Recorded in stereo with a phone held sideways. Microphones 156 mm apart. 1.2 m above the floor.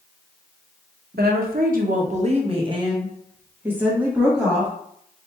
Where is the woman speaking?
80° right, 0.9 m; by 4.7 s centre (ahead or behind), 1.7 m.